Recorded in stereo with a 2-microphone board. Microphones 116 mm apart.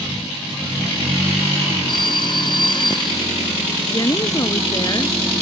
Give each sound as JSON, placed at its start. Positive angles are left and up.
{"t": 1.9, "sound": "a phone ringing", "side_deg": 45}
{"t": 3.9, "sound": "a woman speaking", "side_deg": 40}